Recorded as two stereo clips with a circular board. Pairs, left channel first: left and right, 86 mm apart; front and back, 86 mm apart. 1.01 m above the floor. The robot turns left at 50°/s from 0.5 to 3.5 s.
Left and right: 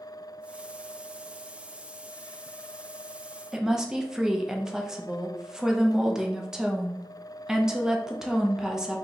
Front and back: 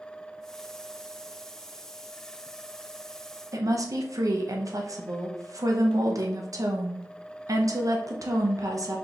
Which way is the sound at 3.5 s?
170° right.